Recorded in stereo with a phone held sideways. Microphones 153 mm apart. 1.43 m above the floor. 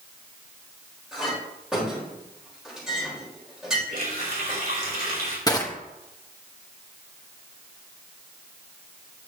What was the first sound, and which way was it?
A clink, 5° right (ahead or behind).